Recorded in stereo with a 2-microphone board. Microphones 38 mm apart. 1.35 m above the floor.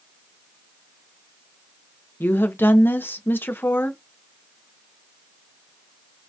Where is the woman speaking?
75° left (ahead or behind), 0.7 m.